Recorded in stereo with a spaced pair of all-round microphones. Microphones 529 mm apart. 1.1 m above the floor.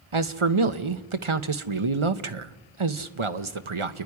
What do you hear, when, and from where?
0.1 s a man speaking: 65° right (ahead or behind), 1.0 m